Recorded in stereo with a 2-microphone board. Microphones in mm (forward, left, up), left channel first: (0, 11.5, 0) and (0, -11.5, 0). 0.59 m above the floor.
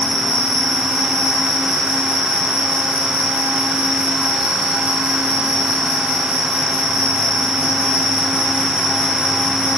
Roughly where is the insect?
Right.